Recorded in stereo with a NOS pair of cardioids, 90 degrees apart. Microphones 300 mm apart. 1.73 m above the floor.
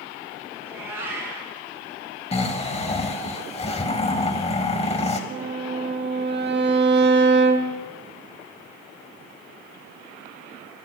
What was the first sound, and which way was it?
A cat meowing, 10° right.